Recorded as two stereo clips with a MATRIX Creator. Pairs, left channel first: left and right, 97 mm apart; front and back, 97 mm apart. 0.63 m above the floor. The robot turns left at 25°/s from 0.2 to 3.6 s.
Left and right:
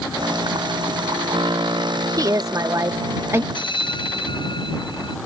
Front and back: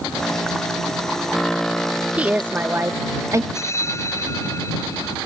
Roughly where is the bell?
Ahead left.